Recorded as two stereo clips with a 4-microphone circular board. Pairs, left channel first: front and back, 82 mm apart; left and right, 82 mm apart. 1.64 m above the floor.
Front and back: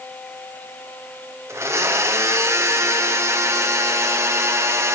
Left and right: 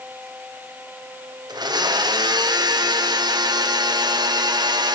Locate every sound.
1.5 s a blender: 125° right, 1.1 m